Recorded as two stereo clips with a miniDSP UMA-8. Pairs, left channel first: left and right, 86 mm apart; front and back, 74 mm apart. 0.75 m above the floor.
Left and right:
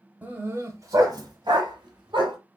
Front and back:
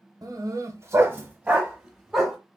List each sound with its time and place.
0.2 s a dog barking: 155° right, 1.0 m; by 2.4 s 95° right, 1.5 m